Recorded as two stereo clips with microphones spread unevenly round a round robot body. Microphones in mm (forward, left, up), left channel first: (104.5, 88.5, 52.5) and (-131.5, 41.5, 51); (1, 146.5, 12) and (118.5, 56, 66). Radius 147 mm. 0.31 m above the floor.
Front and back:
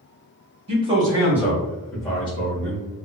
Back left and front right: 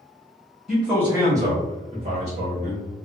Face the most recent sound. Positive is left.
turn(degrees=-15)